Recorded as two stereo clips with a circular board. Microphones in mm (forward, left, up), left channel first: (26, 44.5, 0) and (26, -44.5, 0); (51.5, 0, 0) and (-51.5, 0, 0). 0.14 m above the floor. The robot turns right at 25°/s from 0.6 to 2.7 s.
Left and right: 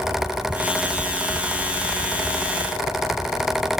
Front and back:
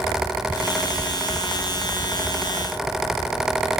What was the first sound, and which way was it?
Only background noise.